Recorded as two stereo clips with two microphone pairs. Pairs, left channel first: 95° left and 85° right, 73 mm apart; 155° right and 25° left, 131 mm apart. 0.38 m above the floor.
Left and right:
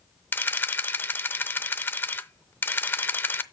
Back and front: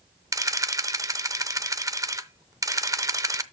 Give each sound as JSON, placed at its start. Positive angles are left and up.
{"t": 0.3, "sound": "a camera shutter", "azimuth_deg": 70, "distance_m": 0.6}